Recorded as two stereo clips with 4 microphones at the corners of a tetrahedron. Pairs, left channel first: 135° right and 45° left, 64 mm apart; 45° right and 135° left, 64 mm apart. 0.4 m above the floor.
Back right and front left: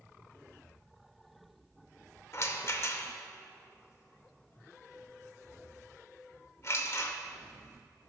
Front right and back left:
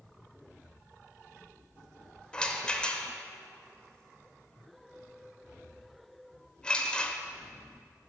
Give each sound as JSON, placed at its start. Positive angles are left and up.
{"t": 2.3, "sound": "a rattle", "azimuth_deg": -115, "distance_m": 0.6}